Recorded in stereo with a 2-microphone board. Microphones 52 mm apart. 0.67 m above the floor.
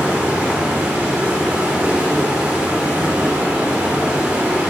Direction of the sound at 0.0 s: 25° right (ahead or behind).